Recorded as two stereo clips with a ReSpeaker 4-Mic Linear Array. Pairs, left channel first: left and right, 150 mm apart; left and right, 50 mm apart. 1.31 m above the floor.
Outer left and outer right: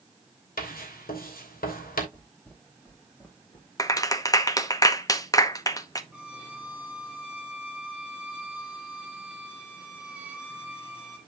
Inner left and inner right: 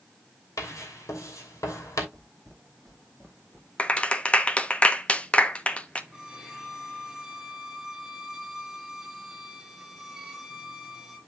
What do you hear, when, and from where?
0.6 s writing: 75° left (ahead or behind), 3 m
2.1 s footsteps: 10° left (ahead or behind), 3.5 m; by 3.7 s 20° left (ahead or behind), 3 m
3.8 s a clap: 25° left (ahead or behind), 0.9 m
6.1 s a violin: 10° right (ahead or behind), 2 m